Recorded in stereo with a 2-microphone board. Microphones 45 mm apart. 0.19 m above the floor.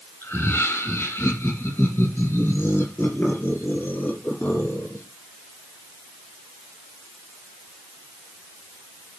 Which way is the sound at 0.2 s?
60° left (ahead or behind).